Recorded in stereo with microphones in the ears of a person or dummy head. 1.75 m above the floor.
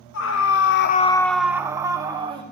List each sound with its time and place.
0.1 s a scream: 70° left (ahead or behind), 1.1 m; by 2.4 s 30° right (ahead or behind), 2.0 m